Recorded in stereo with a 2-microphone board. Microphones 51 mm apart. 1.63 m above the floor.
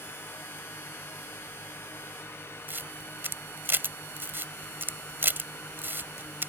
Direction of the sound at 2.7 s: 50° right (ahead or behind).